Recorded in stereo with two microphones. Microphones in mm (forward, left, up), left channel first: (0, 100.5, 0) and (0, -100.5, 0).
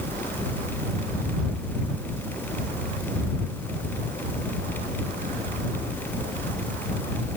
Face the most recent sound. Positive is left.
No sound to turn to.